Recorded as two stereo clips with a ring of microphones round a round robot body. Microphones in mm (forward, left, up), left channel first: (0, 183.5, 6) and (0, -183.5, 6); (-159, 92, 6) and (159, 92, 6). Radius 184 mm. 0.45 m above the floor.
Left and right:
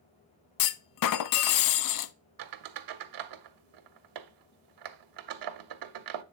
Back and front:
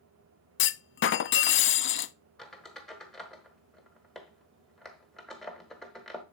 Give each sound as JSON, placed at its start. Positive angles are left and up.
{"t": 0.6, "sound": "a clunk", "azimuth_deg": 125, "distance_m": 0.5}
{"t": 2.4, "sound": "a squeak", "azimuth_deg": -90, "distance_m": 0.9}